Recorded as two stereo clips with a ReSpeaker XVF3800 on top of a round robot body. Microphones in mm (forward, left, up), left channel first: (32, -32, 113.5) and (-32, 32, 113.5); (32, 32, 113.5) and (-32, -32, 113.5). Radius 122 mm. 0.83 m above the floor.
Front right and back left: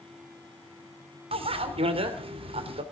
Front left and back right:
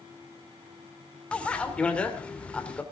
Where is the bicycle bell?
125° left, 2.5 m.